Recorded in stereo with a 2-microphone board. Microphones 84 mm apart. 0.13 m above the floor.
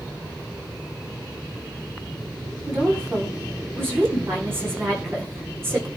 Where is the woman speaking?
25° right (ahead or behind), 7 m.